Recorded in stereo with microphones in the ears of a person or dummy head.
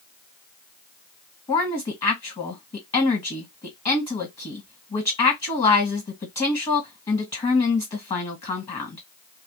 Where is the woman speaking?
35° left (ahead or behind), 1.5 m.